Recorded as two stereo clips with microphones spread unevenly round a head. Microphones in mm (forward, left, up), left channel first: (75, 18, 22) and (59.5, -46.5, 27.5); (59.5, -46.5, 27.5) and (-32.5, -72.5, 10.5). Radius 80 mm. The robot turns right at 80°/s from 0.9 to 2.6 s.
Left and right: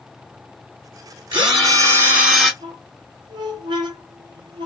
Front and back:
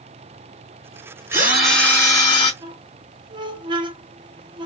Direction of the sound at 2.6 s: 130° right.